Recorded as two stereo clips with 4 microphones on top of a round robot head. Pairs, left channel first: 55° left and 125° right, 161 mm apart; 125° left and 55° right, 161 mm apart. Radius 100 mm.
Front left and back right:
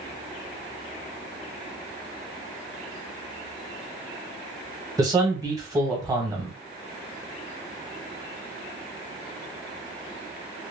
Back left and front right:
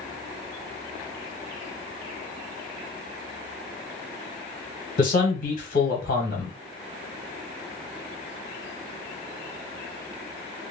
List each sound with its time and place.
5.0 s a man speaking: 165° left, 1.4 m